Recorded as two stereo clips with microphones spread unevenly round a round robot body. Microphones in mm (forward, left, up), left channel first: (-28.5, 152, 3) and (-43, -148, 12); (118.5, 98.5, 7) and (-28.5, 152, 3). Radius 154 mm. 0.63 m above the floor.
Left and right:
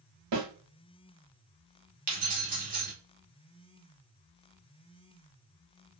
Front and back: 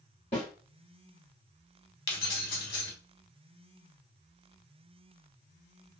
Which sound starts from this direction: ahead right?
Keys jangling, at 2.1 s.